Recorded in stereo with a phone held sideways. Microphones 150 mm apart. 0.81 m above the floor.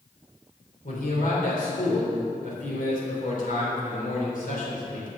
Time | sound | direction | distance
0.8 | a man speaking | 65° left (ahead or behind) | 3.5 m